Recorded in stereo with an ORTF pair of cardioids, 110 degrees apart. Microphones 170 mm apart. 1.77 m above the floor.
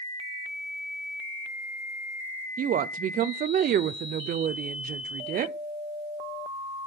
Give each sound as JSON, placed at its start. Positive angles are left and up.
{"t": 2.6, "sound": "a woman speaking", "azimuth_deg": -55, "distance_m": 0.8}